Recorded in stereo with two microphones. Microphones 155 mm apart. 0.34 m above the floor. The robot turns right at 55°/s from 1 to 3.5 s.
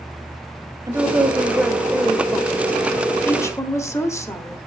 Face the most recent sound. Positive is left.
turn(degrees=20)  # may be behind; listen again after turning